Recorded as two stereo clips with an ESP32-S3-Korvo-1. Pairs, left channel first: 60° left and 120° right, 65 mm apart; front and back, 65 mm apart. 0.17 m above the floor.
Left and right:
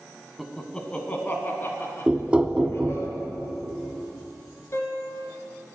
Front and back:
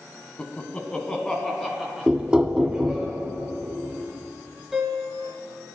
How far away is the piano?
About 1.9 m.